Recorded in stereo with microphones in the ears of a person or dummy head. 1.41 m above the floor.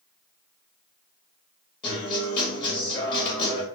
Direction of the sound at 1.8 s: 30° left (ahead or behind).